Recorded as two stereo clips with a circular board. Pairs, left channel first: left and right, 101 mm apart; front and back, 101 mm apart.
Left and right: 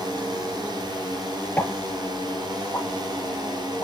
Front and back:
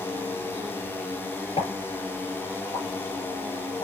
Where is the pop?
20° left, 4 m.